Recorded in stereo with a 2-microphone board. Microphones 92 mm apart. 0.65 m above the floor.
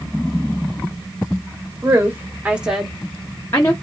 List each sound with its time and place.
1.8 s a woman speaking: 35° right (ahead or behind), 1.1 m; by 3.7 s 35° left (ahead or behind), 1.0 m